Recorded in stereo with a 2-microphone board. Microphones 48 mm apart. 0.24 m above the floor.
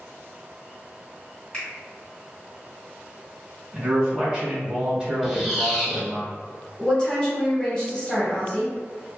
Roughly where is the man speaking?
Centre.